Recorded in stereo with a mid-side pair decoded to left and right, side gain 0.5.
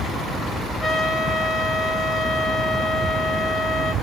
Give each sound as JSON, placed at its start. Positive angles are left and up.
{"t": 0.8, "sound": "a trumpet", "azimuth_deg": 35, "distance_m": 5.5}